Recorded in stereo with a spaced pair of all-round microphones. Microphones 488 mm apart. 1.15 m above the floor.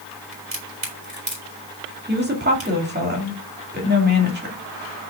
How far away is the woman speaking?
About 2 m.